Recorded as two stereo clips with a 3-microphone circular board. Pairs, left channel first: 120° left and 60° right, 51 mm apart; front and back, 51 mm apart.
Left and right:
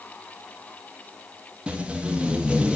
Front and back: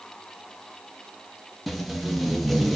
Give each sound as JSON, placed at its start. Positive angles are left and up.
{"t": 1.7, "sound": "tape being pulled", "azimuth_deg": -80, "distance_m": 0.6}